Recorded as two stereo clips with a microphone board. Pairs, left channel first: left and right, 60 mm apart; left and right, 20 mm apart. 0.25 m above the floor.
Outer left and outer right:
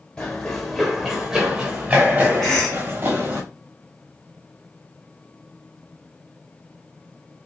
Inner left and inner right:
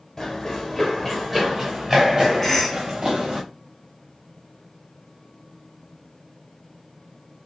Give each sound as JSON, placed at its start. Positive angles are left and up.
{"t": 0.2, "sound": "running footsteps", "side_deg": 15, "distance_m": 1.3}
{"t": 2.4, "sound": "a cough", "side_deg": 10, "distance_m": 1.7}